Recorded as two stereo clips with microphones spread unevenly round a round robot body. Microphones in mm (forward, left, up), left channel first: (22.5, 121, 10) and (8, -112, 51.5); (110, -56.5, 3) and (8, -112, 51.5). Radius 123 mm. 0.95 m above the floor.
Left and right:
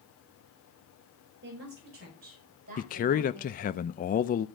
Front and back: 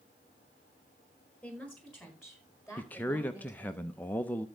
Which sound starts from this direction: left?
A man speaking, at 2.8 s.